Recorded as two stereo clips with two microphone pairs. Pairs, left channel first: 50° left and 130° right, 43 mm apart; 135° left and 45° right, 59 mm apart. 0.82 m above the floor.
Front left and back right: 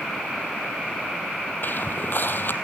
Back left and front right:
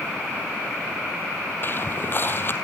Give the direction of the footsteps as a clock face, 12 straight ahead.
9 o'clock.